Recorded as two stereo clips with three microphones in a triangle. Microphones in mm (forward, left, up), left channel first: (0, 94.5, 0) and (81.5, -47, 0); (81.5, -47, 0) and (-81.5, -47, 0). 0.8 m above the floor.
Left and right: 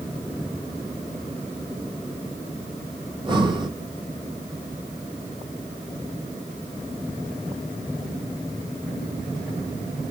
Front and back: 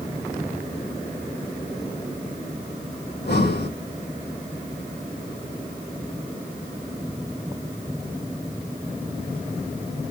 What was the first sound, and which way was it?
Breathing, 5° left.